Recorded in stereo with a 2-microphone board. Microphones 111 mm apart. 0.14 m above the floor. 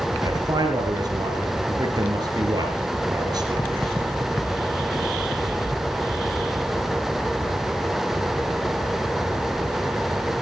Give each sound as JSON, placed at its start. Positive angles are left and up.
{"t": 0.2, "sound": "a man speaking", "side_deg": -35, "distance_m": 3.0}